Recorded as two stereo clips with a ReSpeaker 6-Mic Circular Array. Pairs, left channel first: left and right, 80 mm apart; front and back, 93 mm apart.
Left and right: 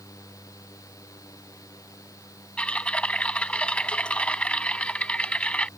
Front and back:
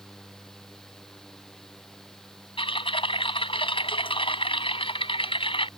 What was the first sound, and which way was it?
Typing on a keyboard, 15° left.